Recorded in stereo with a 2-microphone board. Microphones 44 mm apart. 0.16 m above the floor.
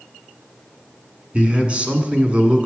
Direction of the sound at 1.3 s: 30° right (ahead or behind).